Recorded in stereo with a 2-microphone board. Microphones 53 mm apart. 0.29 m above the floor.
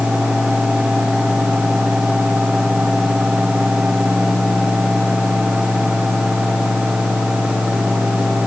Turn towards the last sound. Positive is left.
No sound to turn to.